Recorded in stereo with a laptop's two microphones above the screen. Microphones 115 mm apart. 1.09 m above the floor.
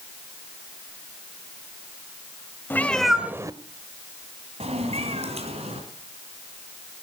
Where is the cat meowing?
15° left (ahead or behind), 1.3 m; by 5.8 s 65° right (ahead or behind), 3 m.